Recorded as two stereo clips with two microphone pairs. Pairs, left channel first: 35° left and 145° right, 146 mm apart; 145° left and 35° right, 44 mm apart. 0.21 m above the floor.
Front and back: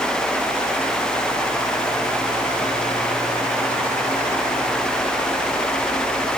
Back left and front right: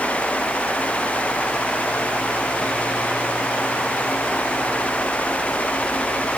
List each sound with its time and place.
Only background noise.